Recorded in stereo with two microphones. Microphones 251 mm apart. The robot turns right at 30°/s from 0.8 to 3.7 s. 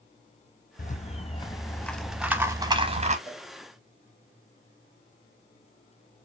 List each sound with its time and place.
0.8 s a rattle: 140° left, 0.5 m; by 3.2 s 150° right, 0.5 m
3.3 s a cowbell: 25° left (ahead or behind), 1.1 m; by 3.5 s 30° left (ahead or behind), 1.1 m